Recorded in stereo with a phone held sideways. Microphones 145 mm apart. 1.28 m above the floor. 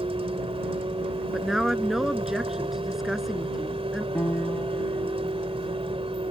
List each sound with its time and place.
0.0 s a vehicle: 40° right (ahead or behind)
1.3 s a woman speaking: 5° right (ahead or behind)
4.2 s a piano: 15° left (ahead or behind)